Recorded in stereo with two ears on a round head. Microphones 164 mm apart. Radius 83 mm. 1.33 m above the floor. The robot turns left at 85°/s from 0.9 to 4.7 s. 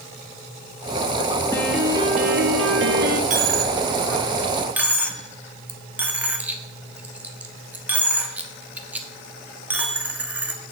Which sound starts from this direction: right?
A dropped coin, at 3.3 s.